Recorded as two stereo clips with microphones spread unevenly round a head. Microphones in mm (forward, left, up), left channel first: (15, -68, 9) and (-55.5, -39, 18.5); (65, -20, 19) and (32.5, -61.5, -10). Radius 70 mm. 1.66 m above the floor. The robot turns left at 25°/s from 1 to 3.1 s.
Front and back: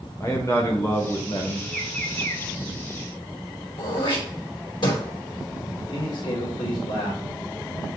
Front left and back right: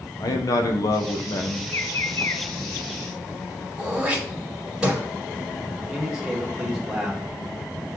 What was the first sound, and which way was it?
A man speaking, 50° left.